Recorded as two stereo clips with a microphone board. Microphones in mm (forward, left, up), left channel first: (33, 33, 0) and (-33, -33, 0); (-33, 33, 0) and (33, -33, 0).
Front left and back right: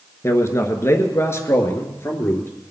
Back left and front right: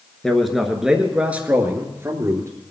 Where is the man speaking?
55° left, 1.7 m; by 2.5 s 5° right, 2.0 m.